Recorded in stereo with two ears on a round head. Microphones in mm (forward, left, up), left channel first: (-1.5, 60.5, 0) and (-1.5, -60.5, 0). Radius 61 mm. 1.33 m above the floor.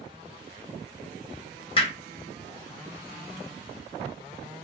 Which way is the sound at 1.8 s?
45° left (ahead or behind).